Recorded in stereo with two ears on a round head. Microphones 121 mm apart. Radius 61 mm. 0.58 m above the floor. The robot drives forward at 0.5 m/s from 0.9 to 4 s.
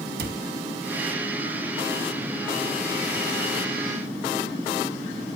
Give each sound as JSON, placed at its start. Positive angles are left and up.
{"t": 0.2, "sound": "a cupboard door", "side_deg": -80, "distance_m": 1.9}